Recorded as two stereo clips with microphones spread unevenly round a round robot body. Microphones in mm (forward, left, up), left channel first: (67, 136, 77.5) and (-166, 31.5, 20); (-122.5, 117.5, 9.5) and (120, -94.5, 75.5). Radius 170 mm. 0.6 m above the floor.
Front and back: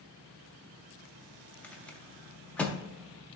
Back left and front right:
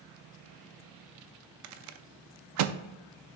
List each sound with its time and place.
1.6 s a rattle: 75° right, 0.5 m